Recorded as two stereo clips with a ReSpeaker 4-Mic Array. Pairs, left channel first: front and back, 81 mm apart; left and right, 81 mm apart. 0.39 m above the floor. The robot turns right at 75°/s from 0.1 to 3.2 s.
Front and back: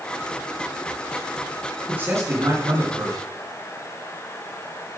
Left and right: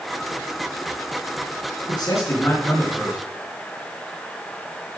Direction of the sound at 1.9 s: 110° left.